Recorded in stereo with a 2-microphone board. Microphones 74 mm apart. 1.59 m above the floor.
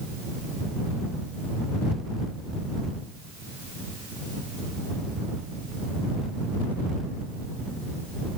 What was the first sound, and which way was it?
Only background noise.